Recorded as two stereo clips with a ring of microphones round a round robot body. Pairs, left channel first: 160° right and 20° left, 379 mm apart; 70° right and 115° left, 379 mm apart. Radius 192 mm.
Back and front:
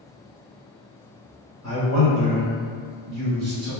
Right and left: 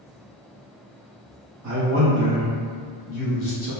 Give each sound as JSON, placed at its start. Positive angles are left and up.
{"t": 1.6, "sound": "a man speaking", "azimuth_deg": 60, "distance_m": 0.9}